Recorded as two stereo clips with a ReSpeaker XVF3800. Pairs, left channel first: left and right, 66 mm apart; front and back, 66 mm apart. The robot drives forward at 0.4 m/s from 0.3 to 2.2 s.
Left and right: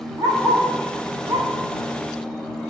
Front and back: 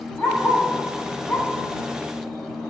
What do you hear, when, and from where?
0.2 s a dog barking: 65° right, 8 m; by 1.5 s 70° right, 7.5 m